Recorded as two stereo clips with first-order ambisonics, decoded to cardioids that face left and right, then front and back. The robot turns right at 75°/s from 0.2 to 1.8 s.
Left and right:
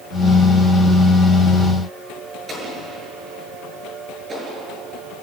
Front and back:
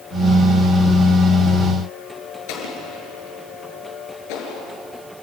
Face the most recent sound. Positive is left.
turn(degrees=-20)